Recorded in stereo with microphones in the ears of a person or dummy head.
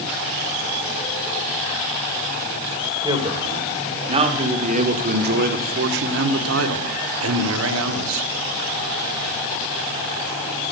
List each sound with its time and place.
3.0 s a man speaking: 15° right (ahead or behind), 2.5 m; by 8.3 s 75° right (ahead or behind), 2 m